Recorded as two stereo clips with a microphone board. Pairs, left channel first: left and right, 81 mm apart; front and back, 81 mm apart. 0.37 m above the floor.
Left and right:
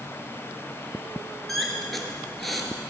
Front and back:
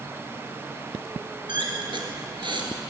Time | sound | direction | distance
1.5 | a squeak | straight behind | 1.5 m